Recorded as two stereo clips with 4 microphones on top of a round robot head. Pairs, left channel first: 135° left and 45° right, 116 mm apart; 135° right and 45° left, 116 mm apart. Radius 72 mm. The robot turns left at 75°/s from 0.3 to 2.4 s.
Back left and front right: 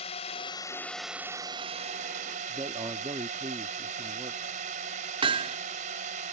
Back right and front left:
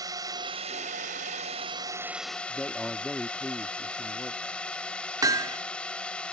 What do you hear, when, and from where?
0.0 s a drone: 100° left; by 6.3 s 55° right
2.5 s a man speaking: 55° right
5.2 s hammering: 10° right